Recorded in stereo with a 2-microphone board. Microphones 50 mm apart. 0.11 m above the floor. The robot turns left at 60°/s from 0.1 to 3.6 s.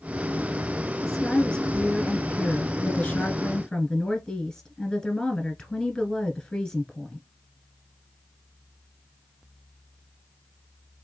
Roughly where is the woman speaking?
Behind.